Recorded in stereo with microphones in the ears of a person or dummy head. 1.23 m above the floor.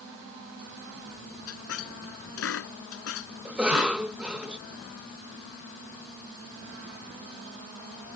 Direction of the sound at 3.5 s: 5° right (ahead or behind).